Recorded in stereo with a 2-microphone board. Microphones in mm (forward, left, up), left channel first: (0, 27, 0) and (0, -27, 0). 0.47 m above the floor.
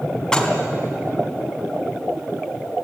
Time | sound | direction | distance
0.3 | dishes clattering | 10° left (ahead or behind) | 3 m